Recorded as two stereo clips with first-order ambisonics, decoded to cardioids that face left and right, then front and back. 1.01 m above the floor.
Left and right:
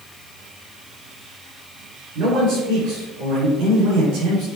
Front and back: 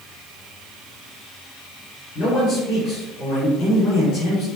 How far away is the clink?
I don't hear a clink.